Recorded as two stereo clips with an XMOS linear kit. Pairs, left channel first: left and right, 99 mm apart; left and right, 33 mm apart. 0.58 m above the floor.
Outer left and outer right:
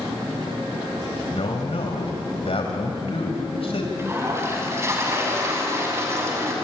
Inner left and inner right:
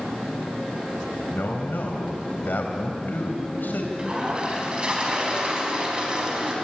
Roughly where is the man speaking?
Left.